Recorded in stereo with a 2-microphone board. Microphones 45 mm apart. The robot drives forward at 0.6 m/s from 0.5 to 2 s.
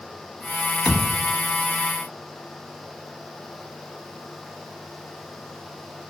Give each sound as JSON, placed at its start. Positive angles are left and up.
{"t": 0.8, "sound": "a thud", "side_deg": 20, "distance_m": 1.1}